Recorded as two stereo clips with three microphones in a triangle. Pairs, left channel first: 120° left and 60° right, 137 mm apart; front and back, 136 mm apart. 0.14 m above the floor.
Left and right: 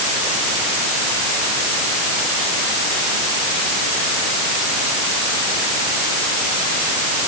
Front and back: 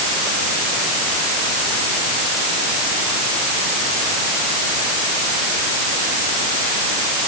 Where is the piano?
I don't hear a piano.